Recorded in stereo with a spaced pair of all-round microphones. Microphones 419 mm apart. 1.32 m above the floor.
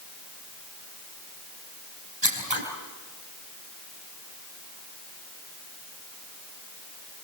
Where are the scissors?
80° right, 5.5 m.